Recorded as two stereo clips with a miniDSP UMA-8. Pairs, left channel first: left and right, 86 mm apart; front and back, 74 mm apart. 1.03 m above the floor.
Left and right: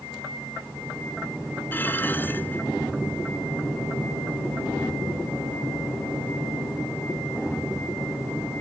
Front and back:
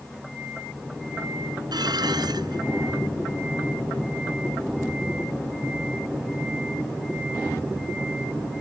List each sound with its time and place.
1.7 s dishes clattering: 160° left